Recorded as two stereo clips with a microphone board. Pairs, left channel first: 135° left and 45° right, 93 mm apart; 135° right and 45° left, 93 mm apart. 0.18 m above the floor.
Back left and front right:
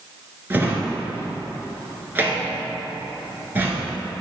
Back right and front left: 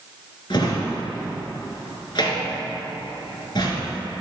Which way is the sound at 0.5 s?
110° right.